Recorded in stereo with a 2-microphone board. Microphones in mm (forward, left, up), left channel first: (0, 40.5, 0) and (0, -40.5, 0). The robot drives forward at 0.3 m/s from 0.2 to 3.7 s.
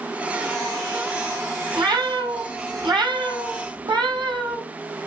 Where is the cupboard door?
No cupboard door in this recording.